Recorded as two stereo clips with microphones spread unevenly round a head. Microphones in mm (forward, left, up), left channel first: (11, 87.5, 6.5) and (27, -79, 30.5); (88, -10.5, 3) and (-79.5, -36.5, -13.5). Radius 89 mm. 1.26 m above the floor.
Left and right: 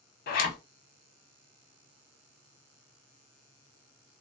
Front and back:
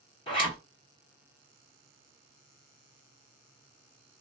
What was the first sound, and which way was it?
A zipper, 75° left.